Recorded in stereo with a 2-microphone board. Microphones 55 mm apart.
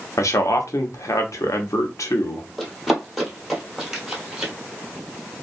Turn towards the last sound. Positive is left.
turn(degrees=-10)  # may be behind; listen again after turning